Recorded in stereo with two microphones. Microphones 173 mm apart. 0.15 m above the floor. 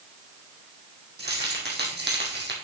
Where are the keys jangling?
75° right (ahead or behind), 4 m; by 2.5 s 80° right, 4 m.